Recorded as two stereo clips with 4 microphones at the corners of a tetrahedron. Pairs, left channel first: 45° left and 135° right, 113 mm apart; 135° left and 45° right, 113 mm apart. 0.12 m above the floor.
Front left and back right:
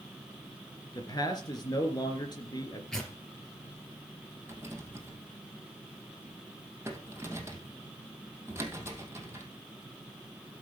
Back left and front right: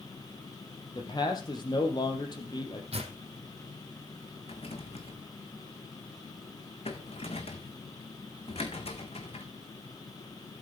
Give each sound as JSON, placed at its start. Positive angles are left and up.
{"t": 0.9, "sound": "a man speaking", "azimuth_deg": 95, "distance_m": 3.0}
{"t": 2.9, "sound": "tearing paper", "azimuth_deg": -40, "distance_m": 3.5}
{"t": 4.5, "sound": "a rattle", "azimuth_deg": 160, "distance_m": 2.5}